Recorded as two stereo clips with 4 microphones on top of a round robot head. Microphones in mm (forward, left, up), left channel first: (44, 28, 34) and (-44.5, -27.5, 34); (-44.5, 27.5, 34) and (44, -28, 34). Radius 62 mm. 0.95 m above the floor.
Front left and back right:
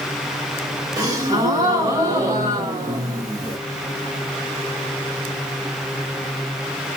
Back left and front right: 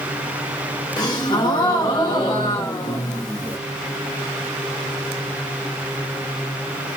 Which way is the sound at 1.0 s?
175° left.